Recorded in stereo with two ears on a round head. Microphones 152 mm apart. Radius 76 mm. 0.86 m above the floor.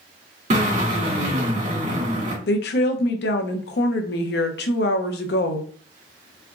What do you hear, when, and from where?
0.5 s a drill: 45° right (ahead or behind), 2.0 m
2.5 s a woman speaking: 65° left (ahead or behind), 0.8 m